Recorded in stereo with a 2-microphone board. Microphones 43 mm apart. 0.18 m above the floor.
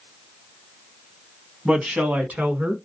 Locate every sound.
1.6 s a woman speaking: 25° right (ahead or behind), 1.0 m; by 2.8 s 45° right (ahead or behind), 1.5 m